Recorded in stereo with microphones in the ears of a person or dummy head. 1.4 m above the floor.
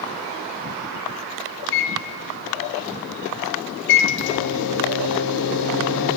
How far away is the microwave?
About 0.7 m.